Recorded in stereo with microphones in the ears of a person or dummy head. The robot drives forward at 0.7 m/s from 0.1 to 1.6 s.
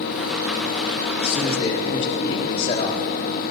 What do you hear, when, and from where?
1.2 s a man speaking: 35° left (ahead or behind), 2.5 m; by 3.0 s 30° left (ahead or behind), 3 m